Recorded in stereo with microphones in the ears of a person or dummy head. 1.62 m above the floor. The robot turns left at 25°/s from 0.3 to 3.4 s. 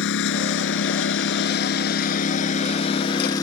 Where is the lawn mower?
100° left; by 3.4 s 25° left.